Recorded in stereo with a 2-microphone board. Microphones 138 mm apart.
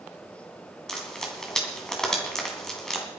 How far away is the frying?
About 3 m.